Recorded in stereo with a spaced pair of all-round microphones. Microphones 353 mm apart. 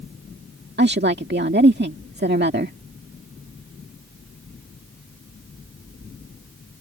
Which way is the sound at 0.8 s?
30° right (ahead or behind).